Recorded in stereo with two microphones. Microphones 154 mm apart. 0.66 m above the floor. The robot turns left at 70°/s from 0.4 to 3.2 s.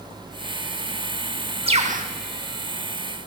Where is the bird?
35° right (ahead or behind), 1.0 m; by 2.1 s 65° right (ahead or behind), 1.0 m.